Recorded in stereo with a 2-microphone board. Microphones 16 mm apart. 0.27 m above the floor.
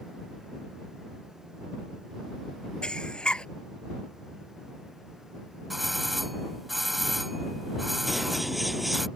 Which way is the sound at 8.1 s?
5° right (ahead or behind).